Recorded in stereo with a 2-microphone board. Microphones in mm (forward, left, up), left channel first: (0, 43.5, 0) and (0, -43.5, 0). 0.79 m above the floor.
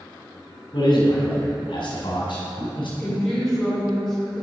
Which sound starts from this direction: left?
A man speaking, at 0.7 s.